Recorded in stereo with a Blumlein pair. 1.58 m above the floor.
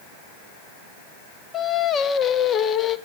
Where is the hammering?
No hammering in this recording.